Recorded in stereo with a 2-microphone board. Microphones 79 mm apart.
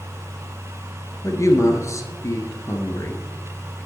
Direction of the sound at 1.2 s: 45° left (ahead or behind).